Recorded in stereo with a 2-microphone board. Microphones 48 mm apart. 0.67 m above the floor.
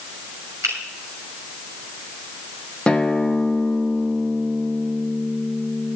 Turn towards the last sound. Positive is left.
turn(degrees=15)  # may be behind; listen again after turning